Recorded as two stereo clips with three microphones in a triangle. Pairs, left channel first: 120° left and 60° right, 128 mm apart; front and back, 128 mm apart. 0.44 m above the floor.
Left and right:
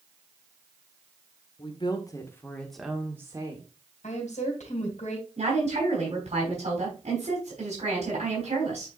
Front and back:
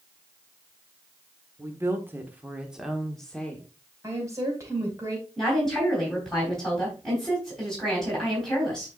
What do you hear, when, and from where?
1.6 s a woman speaking: 125° left, 1.6 m; by 3.7 s 70° right, 1.5 m
4.0 s a woman speaking: 115° left, 3 m
5.4 s a woman speaking: 90° right, 3.5 m